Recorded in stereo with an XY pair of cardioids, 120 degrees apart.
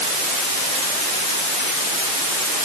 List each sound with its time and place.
Only background noise.